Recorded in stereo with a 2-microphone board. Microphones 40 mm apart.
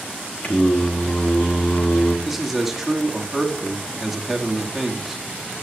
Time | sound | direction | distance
0.4 | singing | 40° left (ahead or behind) | 1.1 m
2.2 | a man speaking | 5° right (ahead or behind) | 1.2 m